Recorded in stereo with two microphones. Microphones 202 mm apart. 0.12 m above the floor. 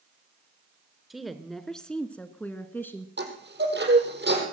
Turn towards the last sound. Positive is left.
turn(degrees=-70)  # may be behind; listen again after turning